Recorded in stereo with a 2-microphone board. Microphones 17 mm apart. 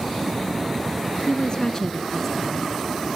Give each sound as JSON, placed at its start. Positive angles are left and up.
{"t": 1.3, "sound": "a woman speaking", "side_deg": 50, "distance_m": 1.8}